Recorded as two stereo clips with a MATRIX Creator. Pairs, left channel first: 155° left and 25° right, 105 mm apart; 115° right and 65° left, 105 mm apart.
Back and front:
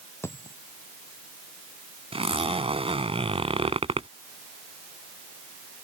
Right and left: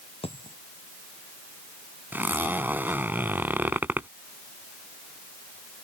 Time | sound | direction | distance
0.2 | a dropped coin | 135° right | ?
2.1 | a zipper | 5° right | ?